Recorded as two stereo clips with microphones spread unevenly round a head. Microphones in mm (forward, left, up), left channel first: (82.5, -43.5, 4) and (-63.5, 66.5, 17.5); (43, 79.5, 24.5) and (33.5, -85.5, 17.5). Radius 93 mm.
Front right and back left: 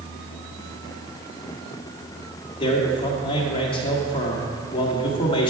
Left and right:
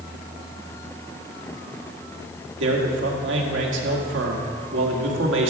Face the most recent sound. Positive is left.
turn(degrees=-100)